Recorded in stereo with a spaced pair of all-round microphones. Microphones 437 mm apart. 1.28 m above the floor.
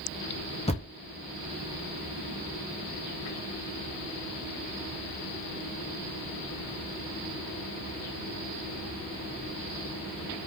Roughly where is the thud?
Centre.